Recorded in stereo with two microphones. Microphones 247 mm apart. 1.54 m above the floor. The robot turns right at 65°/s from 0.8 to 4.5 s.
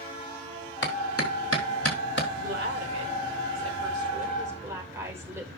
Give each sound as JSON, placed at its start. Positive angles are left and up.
{"t": 0.8, "sound": "a clap", "side_deg": 45, "distance_m": 2.5}
{"t": 2.4, "sound": "a woman speaking", "azimuth_deg": -150, "distance_m": 5.0}